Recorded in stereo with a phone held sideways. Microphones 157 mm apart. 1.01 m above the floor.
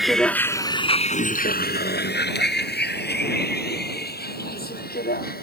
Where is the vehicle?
Centre (ahead or behind); by 5.4 s 65° left (ahead or behind).